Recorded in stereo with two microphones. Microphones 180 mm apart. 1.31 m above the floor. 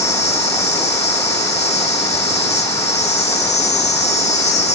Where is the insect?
35° left (ahead or behind), 1.2 m.